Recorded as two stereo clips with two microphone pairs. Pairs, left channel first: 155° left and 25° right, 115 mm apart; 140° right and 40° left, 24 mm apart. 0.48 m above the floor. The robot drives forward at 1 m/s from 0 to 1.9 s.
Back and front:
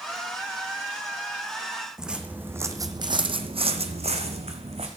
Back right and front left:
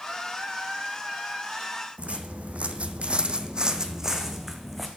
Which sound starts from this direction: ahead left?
Footsteps, at 2.0 s.